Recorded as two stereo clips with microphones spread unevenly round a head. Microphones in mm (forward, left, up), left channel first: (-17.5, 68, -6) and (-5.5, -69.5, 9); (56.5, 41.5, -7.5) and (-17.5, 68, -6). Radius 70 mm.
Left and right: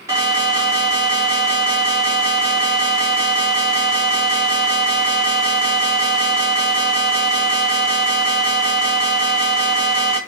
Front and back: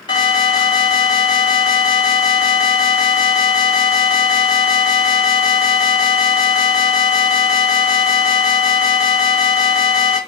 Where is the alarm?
10° right, 2 m.